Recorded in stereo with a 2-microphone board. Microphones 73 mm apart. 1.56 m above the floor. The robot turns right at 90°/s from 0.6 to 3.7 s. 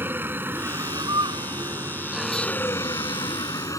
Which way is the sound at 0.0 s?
150° right.